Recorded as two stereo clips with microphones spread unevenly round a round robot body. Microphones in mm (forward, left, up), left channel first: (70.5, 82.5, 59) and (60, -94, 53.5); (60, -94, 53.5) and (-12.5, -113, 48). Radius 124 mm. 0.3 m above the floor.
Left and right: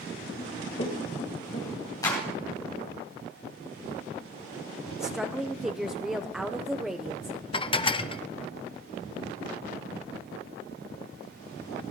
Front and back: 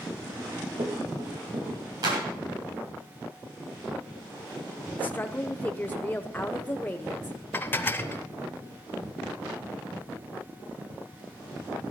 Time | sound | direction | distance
0.4 | running footsteps | 155° left | 6 m
2.0 | a clap | 160° left | 3 m
5.0 | a woman speaking | 15° right | 0.9 m
7.5 | dishes clattering | 55° left | 0.6 m